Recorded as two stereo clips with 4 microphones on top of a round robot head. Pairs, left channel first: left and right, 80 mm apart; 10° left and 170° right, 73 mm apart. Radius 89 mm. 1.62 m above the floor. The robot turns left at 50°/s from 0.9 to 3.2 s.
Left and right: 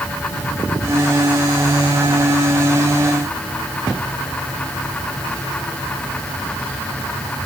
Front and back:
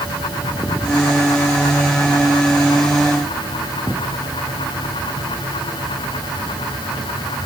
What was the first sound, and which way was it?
Only background noise.